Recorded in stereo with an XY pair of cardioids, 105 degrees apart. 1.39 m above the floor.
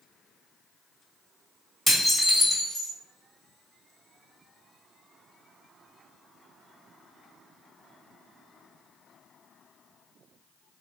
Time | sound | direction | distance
1.9 | dishes clattering | 5° left | 1.3 m